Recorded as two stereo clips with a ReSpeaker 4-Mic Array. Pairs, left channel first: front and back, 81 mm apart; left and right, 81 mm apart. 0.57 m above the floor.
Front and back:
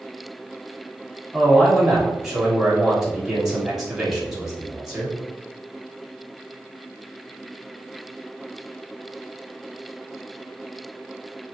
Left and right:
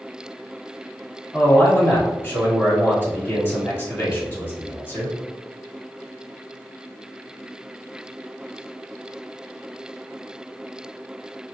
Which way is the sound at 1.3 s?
100° left.